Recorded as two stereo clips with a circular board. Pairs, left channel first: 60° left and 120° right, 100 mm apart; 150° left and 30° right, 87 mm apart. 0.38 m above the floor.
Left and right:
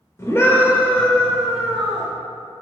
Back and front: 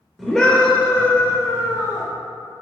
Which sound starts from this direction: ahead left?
A scream, at 0.2 s.